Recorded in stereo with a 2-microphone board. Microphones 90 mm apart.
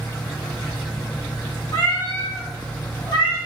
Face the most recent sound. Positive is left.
turn(degrees=75)  # may be behind; listen again after turning